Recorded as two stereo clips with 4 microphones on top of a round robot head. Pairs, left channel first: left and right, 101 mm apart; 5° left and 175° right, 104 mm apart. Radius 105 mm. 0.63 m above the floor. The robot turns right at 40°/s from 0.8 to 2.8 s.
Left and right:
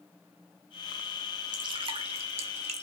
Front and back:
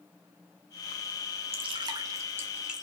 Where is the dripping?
140° right, 0.5 m; by 2.9 s 85° right, 0.5 m.